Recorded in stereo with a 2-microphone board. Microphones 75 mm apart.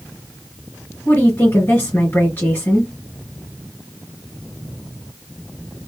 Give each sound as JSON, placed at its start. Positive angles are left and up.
{"t": 1.1, "sound": "a woman speaking", "side_deg": 30, "distance_m": 2.0}